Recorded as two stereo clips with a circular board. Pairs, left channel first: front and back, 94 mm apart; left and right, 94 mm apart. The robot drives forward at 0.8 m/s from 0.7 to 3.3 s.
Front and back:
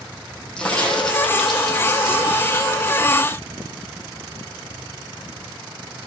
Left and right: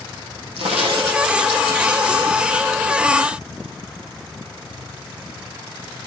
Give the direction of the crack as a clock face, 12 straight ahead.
3 o'clock.